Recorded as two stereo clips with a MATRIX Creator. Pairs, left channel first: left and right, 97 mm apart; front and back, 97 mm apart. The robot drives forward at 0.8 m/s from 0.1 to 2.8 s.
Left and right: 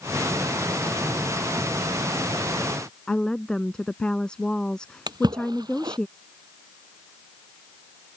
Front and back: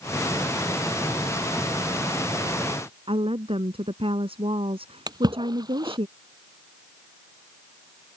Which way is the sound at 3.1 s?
170° left.